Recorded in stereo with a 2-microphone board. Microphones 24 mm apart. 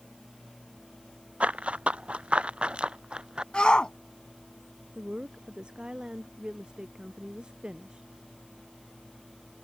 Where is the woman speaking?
40° right (ahead or behind).